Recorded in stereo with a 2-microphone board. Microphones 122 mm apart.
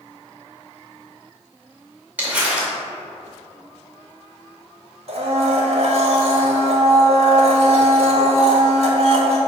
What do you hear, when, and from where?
2.2 s crumpling: 15° right (ahead or behind), 2 m
5.1 s a blender: 55° right (ahead or behind), 1.3 m